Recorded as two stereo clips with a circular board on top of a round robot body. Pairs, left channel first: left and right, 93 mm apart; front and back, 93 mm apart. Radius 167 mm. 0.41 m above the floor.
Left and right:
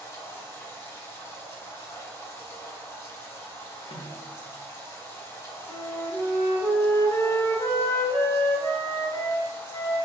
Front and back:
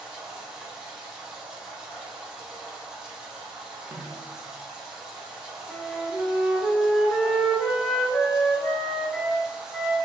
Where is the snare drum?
105° left, 0.6 m.